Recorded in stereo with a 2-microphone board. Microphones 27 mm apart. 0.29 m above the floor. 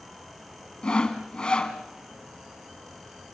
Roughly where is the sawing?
Left.